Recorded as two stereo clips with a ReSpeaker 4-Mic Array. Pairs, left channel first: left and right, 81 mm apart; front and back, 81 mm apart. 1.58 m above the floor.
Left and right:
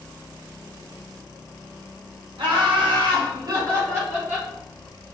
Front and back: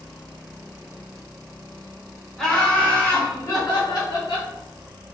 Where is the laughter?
85° right, 1.6 m; by 4.5 s 20° right, 1.6 m.